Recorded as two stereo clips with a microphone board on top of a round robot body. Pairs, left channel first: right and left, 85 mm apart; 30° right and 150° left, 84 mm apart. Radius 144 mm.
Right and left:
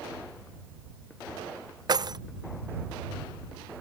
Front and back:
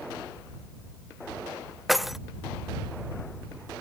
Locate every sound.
1.9 s keys jangling: 60° left